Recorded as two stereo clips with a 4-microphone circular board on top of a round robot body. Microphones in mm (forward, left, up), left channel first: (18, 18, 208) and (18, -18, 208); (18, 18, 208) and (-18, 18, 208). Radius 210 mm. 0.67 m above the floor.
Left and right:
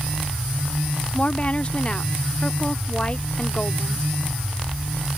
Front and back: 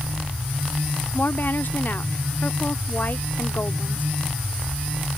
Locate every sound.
1.1 s a woman speaking: 30° left